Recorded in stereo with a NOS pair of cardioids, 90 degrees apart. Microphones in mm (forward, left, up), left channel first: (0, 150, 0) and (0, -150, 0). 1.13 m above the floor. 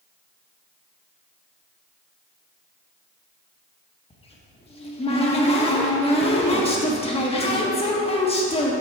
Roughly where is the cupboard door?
Ahead.